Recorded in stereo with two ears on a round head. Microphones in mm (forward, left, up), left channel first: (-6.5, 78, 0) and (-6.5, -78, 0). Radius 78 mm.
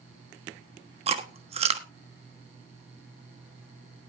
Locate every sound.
1.1 s chewing: 35° right (ahead or behind), 1.3 m